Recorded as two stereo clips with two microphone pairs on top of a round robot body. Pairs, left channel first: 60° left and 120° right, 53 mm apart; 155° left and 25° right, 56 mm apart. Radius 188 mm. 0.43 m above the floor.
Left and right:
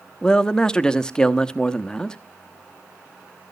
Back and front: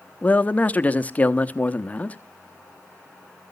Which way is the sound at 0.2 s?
125° left.